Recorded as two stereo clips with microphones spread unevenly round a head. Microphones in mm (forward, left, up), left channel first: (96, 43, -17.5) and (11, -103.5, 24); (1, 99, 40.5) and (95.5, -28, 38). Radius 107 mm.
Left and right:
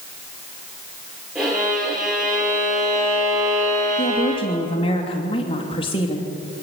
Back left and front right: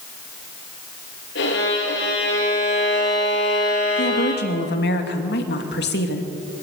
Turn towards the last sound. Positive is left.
turn(degrees=125)